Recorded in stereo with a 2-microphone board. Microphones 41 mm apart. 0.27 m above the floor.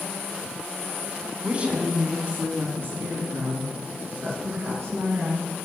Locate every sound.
1.4 s a woman speaking: 25° right (ahead or behind), 1.9 m; by 5.5 s 75° right (ahead or behind), 3.5 m